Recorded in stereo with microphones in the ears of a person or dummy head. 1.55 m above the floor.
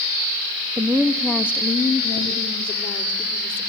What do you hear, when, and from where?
0.8 s a woman speaking: 15° right (ahead or behind), 1.1 m; by 3.6 s 30° left (ahead or behind), 4.5 m